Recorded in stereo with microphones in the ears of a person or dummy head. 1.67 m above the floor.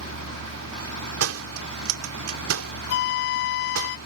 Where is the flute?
55° left (ahead or behind).